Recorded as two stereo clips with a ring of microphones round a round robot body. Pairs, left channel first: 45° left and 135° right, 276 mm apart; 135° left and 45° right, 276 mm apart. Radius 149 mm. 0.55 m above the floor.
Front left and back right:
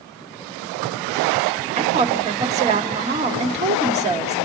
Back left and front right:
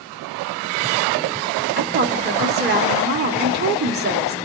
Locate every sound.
1.8 s a woman speaking: 80° right, 1.3 m